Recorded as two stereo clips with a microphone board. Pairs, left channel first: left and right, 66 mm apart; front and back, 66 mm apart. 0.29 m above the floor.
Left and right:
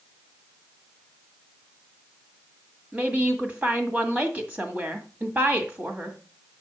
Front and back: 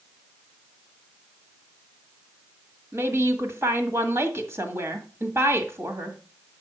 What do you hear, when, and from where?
2.9 s a woman speaking: 145° right, 1.7 m